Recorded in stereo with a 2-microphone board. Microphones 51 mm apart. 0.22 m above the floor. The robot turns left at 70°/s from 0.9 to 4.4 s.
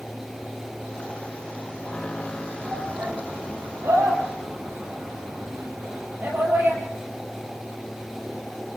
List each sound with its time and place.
2.6 s a shout: 5° right (ahead or behind), 6.5 m; by 6.8 s 50° right (ahead or behind), 6.5 m